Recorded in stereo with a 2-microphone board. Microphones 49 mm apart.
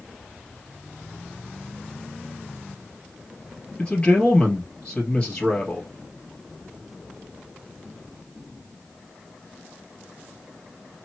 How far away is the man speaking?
About 2 m.